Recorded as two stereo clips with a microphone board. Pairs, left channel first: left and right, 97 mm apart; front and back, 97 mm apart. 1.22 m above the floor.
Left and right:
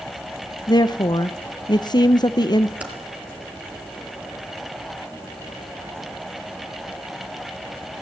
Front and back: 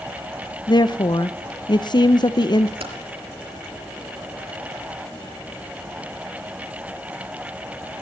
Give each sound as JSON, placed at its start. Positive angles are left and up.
{"t": 0.7, "sound": "a woman speaking", "azimuth_deg": 45, "distance_m": 0.9}
{"t": 2.8, "sound": "typing on a keyboard", "azimuth_deg": -165, "distance_m": 4.0}